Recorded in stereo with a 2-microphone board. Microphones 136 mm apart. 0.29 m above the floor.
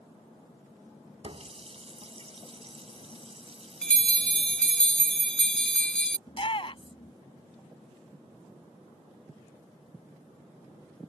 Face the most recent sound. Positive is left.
turn(degrees=45)  # may be behind; listen again after turning